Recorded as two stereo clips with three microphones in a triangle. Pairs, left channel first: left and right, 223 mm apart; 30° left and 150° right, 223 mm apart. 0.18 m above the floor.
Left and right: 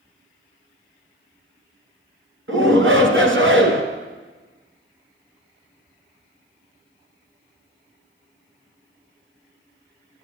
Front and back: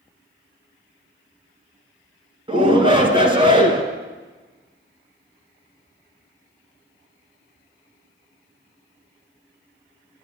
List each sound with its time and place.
2.5 s a shout: 85° right, 2.5 m